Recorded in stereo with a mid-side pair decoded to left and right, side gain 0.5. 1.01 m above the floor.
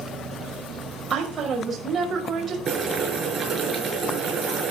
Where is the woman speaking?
40° right, 5 m.